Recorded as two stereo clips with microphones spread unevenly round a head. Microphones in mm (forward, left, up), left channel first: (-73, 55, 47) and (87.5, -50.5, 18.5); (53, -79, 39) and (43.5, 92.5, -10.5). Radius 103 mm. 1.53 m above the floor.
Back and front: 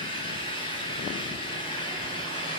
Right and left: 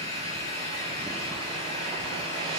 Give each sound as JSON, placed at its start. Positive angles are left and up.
{"t": 0.0, "sound": "an engine running", "azimuth_deg": -145, "distance_m": 9.0}